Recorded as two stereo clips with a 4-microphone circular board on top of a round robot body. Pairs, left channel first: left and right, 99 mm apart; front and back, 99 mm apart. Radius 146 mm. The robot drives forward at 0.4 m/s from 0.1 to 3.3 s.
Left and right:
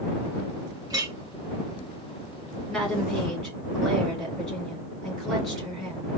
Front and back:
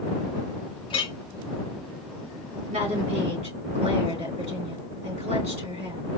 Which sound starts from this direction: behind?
A woman speaking, at 2.7 s.